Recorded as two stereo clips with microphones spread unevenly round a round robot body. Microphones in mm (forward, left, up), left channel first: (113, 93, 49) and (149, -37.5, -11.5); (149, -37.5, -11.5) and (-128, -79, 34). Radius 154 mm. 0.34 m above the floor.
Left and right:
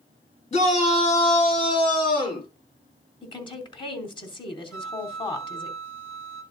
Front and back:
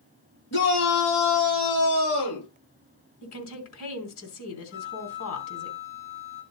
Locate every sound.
0.5 s a shout: 60° left, 7 m; by 2.5 s 50° left, 7.5 m
3.2 s a woman speaking: 40° left, 3.5 m
4.7 s a flute: 40° left, 8 m